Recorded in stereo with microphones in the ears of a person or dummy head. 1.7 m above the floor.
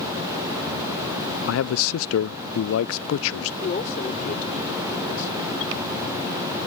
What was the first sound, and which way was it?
A man speaking, 80° left.